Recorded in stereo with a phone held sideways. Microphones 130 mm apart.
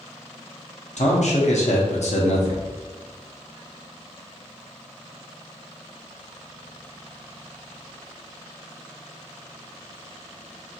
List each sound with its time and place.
1.0 s a man speaking: 70° left (ahead or behind), 1.0 m